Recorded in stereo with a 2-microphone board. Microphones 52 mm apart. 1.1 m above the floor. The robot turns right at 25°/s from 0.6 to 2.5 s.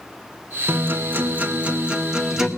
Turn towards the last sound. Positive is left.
turn(degrees=-5)